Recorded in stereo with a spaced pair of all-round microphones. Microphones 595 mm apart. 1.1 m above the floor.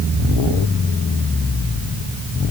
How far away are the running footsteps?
I don't hear running footsteps.